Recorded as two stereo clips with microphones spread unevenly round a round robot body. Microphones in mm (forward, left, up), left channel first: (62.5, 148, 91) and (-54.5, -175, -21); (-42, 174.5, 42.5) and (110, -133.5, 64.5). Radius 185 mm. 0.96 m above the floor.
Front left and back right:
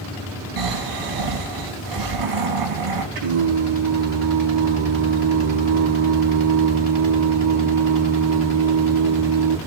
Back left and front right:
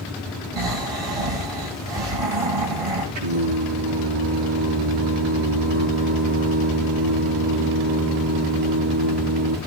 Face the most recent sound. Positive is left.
turn(degrees=-80)